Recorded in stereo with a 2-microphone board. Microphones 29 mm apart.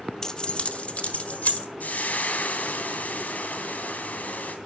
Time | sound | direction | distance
0.2 | keys jangling | 20° left (ahead or behind) | 0.5 m
1.8 | frying | 75° left (ahead or behind) | 2 m